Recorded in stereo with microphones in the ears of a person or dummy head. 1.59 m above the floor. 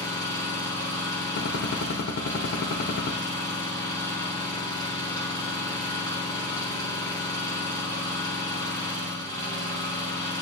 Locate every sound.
0.0 s an engine running: 20° left (ahead or behind), 2.5 m
1.4 s a gunshot: 60° left (ahead or behind), 0.9 m